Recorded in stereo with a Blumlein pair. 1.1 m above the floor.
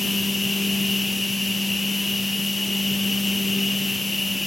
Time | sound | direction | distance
0.0 | a machine running | 10° left | 0.8 m